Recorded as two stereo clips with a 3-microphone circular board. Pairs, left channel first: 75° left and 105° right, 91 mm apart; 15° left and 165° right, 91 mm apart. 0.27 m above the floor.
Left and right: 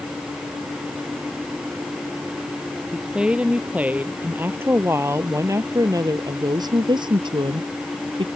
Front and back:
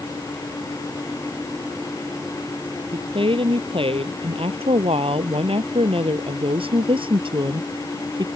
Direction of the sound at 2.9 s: 175° left.